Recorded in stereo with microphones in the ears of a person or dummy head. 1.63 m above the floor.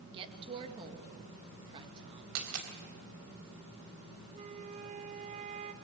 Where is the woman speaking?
25° right (ahead or behind), 2 m.